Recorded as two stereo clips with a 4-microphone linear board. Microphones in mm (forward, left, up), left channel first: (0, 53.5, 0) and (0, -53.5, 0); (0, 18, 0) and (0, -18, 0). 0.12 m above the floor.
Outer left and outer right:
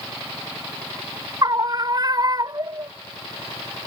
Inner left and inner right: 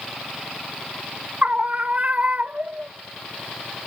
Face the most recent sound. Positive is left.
turn(degrees=-40)  # may be behind; listen again after turning